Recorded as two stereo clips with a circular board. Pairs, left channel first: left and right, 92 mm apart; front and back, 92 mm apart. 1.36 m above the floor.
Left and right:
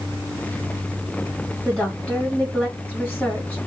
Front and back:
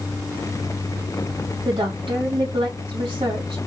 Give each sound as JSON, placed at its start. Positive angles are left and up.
{"t": 1.6, "sound": "a woman speaking", "azimuth_deg": 165, "distance_m": 3.0}